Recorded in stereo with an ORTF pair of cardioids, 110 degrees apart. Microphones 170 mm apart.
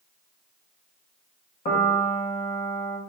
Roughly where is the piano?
Ahead left.